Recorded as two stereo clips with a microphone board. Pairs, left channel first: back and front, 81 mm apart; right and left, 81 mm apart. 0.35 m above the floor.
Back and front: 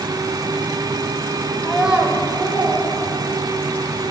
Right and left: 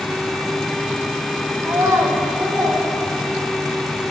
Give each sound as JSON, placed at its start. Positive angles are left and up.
{"t": 1.6, "sound": "a child speaking", "azimuth_deg": 110, "distance_m": 0.6}